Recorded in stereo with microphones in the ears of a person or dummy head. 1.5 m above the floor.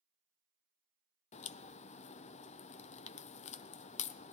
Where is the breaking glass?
No breaking glass in this recording.